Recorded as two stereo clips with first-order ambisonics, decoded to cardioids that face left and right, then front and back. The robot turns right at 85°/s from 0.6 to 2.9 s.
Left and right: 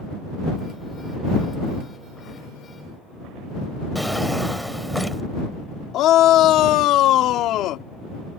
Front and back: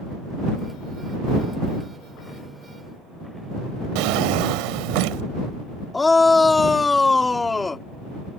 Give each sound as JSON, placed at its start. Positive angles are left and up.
{"t": 4.0, "sound": "a drawer", "azimuth_deg": 180}
{"t": 5.9, "sound": "a shout", "azimuth_deg": 75}